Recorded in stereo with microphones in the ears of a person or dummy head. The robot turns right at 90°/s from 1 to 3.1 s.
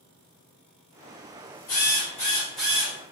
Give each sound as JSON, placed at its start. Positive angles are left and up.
{"t": 1.7, "sound": "a drill", "azimuth_deg": 95, "distance_m": 1.8}